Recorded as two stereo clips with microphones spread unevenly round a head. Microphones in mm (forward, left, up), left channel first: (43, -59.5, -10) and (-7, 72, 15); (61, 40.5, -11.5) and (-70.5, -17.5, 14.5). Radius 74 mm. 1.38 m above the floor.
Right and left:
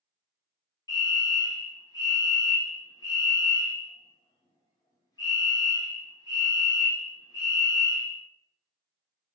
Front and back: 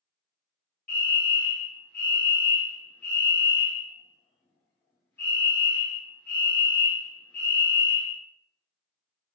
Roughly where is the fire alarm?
Ahead right.